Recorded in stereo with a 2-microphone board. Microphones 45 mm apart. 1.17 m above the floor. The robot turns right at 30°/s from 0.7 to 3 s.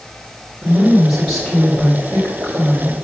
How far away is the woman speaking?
About 4 m.